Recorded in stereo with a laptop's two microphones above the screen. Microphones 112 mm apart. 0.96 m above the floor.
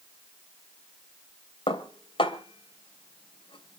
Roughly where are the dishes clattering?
Left.